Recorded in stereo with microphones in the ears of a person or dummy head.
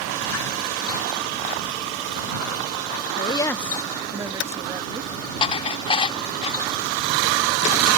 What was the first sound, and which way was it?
A woman speaking, 30° left (ahead or behind).